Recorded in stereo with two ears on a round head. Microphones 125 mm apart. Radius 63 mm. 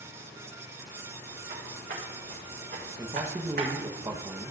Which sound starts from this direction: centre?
A man speaking, at 3.0 s.